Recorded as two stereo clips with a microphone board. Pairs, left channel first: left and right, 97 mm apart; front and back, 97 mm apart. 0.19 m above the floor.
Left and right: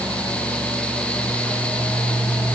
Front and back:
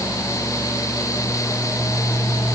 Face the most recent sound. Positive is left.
No sound to turn to.